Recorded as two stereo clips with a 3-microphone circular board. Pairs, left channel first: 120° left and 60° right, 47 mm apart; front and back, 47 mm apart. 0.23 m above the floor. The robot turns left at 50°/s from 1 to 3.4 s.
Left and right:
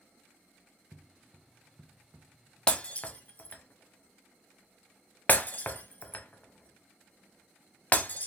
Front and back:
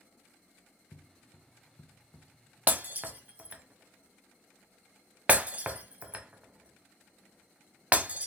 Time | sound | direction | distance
0.9 | footsteps | 10° left | 0.6 m
2.7 | breaking glass | straight behind | 0.5 m